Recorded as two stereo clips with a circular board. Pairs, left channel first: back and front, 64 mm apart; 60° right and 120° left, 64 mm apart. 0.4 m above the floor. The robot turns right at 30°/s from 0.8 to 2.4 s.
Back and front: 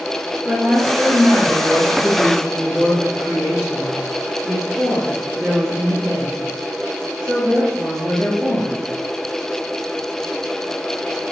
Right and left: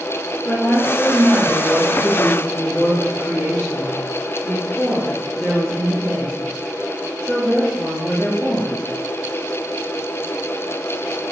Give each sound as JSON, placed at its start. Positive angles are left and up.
{"t": 0.5, "sound": "a woman speaking", "azimuth_deg": -40, "distance_m": 1.3}